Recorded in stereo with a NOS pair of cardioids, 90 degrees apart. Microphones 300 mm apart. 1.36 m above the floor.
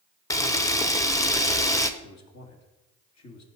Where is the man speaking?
60° left, 2.5 m.